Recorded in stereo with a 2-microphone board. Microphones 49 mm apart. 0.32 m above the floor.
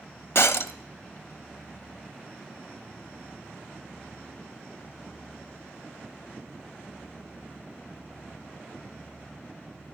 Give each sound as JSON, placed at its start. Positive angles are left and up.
{"t": 0.3, "sound": "breaking glass", "side_deg": 60, "distance_m": 0.5}